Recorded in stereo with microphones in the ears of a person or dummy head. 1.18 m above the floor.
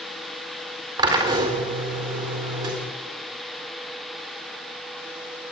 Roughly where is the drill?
Right.